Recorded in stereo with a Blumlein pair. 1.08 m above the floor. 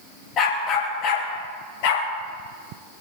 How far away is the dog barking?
About 5.5 m.